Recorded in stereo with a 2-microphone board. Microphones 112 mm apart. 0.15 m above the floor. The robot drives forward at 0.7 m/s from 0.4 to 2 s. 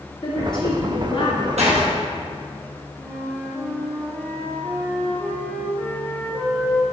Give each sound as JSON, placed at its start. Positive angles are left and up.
{"t": 0.2, "sound": "a woman speaking", "side_deg": 50, "distance_m": 2.5}
{"t": 1.6, "sound": "a door slam", "side_deg": -75, "distance_m": 3.0}
{"t": 3.0, "sound": "a flute", "side_deg": -15, "distance_m": 2.0}